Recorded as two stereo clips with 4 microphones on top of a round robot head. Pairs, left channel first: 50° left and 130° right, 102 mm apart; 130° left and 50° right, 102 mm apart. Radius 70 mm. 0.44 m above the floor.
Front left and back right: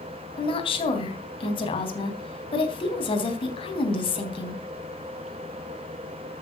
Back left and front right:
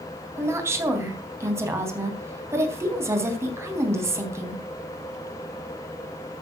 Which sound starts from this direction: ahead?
A woman speaking, at 0.4 s.